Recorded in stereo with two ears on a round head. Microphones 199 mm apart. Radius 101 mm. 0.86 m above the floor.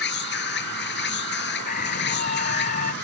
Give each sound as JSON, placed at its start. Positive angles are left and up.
{"t": 0.0, "sound": "an insect", "side_deg": 55}
{"t": 1.6, "sound": "a scream", "side_deg": 40}